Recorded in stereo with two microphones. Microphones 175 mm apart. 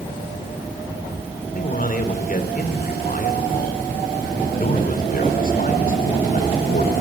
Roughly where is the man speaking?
Left.